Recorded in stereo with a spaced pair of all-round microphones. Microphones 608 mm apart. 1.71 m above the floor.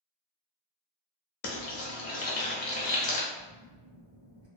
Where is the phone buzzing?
45° right (ahead or behind), 1.0 m.